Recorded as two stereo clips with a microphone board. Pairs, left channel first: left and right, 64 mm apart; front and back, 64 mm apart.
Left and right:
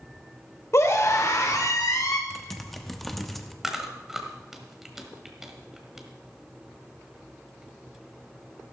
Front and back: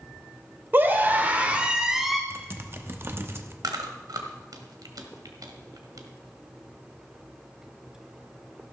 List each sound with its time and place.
0.7 s a scream: 125° left, 2.5 m; by 2.2 s 90° left, 1.6 m
2.3 s typing on a keyboard: 175° left, 0.9 m
3.6 s chewing: 175° right, 1.6 m